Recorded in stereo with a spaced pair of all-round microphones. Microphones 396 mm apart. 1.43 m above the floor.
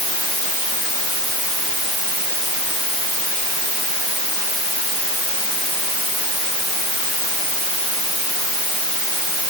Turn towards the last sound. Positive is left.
No sound to turn to.